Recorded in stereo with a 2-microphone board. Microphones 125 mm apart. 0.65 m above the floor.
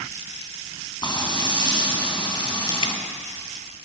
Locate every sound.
1.0 s frying: 35° left (ahead or behind), 3.5 m
2.8 s dripping: 45° left (ahead or behind), 1.1 m